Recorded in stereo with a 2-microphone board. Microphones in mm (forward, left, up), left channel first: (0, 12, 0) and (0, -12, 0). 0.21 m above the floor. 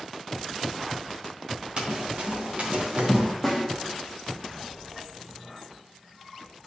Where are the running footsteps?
45° right (ahead or behind), 2.5 m; by 3.3 s 60° right (ahead or behind), 2.0 m.